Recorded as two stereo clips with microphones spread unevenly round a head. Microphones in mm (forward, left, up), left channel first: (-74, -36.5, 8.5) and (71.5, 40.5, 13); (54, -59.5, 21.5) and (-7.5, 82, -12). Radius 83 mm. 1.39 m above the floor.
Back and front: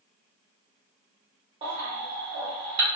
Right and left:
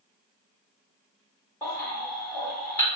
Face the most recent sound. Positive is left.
turn(degrees=-15)